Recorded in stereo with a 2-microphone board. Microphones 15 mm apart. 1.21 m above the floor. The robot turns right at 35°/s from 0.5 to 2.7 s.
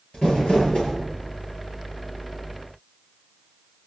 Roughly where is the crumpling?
Left.